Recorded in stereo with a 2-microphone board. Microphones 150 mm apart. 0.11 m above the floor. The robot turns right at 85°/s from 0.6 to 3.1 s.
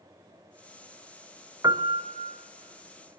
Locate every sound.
1.6 s a piano: 150° right, 0.8 m; by 2.4 s 90° right, 0.8 m